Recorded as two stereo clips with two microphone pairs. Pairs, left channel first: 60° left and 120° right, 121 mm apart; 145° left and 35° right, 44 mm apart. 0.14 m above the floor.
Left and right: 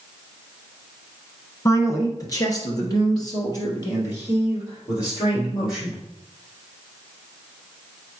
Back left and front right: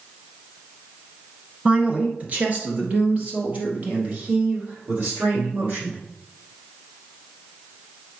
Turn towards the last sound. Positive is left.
turn(degrees=5)